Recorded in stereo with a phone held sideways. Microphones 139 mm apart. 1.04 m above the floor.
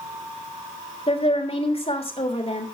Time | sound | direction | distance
1.1 | a woman speaking | 45° left (ahead or behind) | 3 m